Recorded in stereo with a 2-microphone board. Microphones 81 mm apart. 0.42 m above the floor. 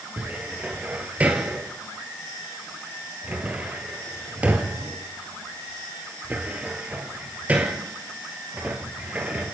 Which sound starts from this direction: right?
A cupboard door, at 0.2 s.